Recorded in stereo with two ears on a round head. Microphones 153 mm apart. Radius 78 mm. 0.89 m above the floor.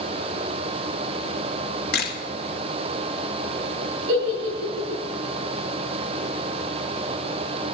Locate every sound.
1.9 s a camera shutter: 60° left (ahead or behind), 2 m
4.1 s a giggle: 65° right (ahead or behind), 6.5 m